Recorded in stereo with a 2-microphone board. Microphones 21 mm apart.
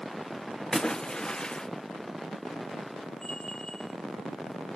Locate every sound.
0.7 s a splash: 45° left (ahead or behind), 0.8 m
3.2 s a bell: 50° left (ahead or behind), 2.5 m